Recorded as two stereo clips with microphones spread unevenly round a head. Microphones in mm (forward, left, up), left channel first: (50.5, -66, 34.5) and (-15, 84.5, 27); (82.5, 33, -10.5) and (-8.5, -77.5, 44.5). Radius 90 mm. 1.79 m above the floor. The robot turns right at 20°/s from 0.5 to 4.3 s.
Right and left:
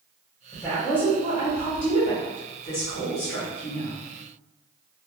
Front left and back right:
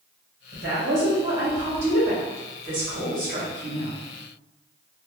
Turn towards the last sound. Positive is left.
turn(degrees=-80)